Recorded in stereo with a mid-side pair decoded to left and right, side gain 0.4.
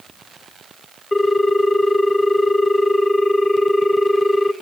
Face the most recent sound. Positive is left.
turn(degrees=15)